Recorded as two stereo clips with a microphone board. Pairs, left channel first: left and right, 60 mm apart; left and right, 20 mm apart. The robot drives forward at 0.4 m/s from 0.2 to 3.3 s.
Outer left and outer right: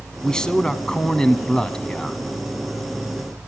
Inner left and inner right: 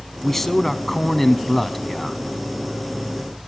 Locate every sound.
0.2 s a man speaking: 15° left (ahead or behind), 1.2 m